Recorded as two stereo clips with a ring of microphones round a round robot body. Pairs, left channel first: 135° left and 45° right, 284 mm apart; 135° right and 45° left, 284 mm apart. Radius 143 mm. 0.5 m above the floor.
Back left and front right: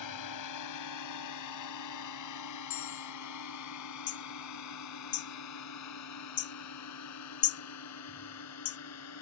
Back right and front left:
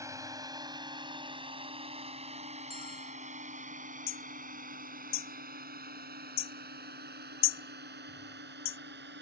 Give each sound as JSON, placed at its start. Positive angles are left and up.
{"t": 0.0, "sound": "a drone", "azimuth_deg": 125}
{"t": 2.7, "sound": "a bell", "azimuth_deg": 155}
{"t": 4.1, "sound": "hammering", "azimuth_deg": 175}